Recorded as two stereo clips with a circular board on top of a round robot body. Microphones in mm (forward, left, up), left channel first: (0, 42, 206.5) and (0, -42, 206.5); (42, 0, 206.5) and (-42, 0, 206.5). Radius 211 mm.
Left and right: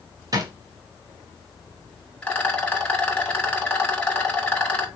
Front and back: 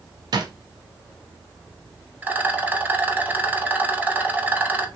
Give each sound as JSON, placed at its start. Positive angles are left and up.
{"t": 0.3, "sound": "a drawer", "azimuth_deg": -140, "distance_m": 0.6}
{"t": 2.2, "sound": "a rattle", "azimuth_deg": 145, "distance_m": 1.4}